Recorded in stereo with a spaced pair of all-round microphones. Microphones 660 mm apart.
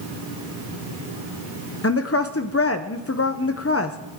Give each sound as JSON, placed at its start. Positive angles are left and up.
{"t": 1.8, "sound": "a woman speaking", "side_deg": 25, "distance_m": 0.6}